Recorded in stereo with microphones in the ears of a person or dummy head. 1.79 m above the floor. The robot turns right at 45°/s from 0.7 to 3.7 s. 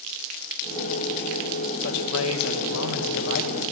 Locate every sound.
1.8 s a man speaking: 60° left, 2 m; by 3.6 s 140° left, 2 m